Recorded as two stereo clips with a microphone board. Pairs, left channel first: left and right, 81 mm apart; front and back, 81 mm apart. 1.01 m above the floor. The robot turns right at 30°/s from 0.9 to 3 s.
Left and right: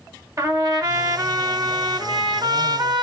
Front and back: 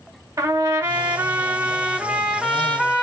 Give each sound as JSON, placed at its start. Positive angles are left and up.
{"t": 0.4, "sound": "a trumpet", "azimuth_deg": -135, "distance_m": 1.3}